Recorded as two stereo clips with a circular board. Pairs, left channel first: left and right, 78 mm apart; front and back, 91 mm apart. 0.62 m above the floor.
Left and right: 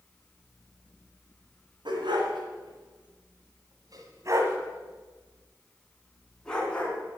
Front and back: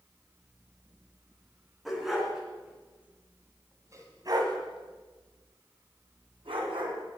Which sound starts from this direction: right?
A dog barking, at 1.9 s.